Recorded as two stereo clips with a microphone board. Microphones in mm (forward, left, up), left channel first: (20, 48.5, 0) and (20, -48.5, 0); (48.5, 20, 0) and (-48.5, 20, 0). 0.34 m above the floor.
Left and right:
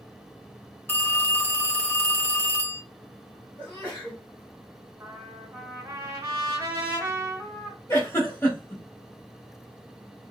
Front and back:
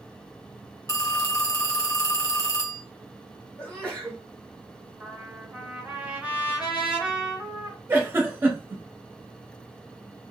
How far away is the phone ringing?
About 0.6 m.